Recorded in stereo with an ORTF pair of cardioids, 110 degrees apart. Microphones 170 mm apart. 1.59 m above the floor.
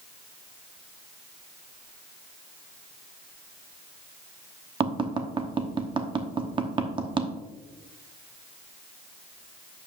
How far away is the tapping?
About 1.0 m.